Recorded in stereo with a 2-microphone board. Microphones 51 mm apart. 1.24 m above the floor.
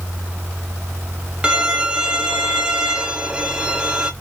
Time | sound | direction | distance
1.4 | a violin | 15° right (ahead or behind) | 0.6 m